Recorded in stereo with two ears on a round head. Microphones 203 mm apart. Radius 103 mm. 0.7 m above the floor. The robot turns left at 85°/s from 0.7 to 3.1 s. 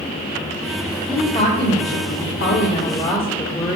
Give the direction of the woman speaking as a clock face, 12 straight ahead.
6 o'clock.